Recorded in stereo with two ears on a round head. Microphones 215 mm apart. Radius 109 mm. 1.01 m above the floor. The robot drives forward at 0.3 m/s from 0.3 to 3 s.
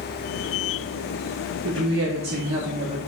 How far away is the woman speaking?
About 0.6 m.